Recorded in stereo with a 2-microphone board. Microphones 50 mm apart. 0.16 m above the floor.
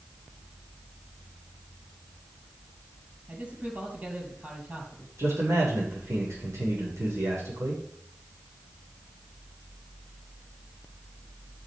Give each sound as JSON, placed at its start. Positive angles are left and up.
{"t": 3.3, "sound": "a man speaking", "side_deg": -30, "distance_m": 5.0}
{"t": 5.2, "sound": "a man speaking", "side_deg": -75, "distance_m": 8.5}